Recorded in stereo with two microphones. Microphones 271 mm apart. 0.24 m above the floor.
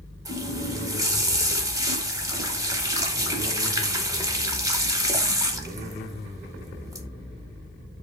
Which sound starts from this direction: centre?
A running tap, at 0.2 s.